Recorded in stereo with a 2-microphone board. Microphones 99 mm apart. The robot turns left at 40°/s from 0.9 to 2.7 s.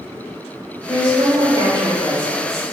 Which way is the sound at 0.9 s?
55° right.